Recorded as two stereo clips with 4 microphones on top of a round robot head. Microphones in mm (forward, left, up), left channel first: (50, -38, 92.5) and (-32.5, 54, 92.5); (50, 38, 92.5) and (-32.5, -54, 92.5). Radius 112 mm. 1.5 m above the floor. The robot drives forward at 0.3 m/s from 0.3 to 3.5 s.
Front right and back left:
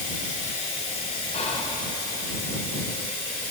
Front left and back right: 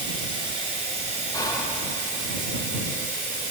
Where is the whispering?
15° right, 1.0 m.